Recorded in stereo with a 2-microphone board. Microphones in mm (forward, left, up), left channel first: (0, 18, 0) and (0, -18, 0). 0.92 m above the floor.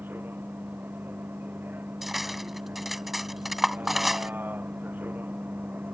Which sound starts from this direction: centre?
Cutlery clinking, at 2.0 s.